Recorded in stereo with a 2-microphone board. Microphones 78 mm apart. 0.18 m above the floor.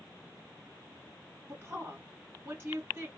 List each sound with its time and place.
1.5 s a woman speaking: 30° right (ahead or behind), 2 m